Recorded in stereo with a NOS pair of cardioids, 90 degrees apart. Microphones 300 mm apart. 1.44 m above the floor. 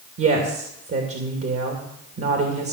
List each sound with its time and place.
0.2 s a woman speaking: 50° right, 2.5 m